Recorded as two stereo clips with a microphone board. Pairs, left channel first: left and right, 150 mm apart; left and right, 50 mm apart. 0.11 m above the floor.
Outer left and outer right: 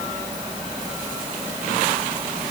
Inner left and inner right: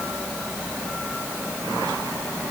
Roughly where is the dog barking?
No dog barking in this recording.